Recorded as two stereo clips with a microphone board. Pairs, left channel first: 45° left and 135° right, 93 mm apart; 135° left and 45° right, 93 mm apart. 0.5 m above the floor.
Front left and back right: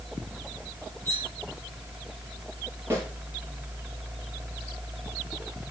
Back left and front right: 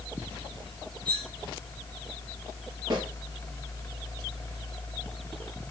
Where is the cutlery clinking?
20° right, 3.5 m.